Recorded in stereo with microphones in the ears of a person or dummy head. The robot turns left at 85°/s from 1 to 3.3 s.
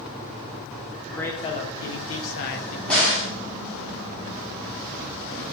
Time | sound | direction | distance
1.1 | a man speaking | 175° right | 0.6 m
2.9 | a crack | 175° right | 1.1 m